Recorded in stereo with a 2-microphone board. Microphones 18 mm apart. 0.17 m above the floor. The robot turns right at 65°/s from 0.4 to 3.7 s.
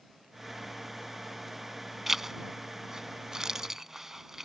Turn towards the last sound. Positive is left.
turn(degrees=-25)  # may be behind; listen again after turning